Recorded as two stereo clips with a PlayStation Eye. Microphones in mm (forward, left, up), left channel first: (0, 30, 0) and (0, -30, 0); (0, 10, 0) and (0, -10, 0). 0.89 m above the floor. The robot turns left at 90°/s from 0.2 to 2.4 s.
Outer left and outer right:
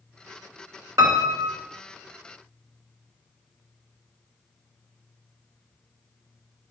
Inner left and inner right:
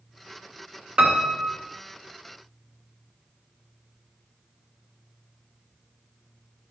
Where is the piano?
70° right, 1.3 m; by 1.6 s 125° right, 1.3 m.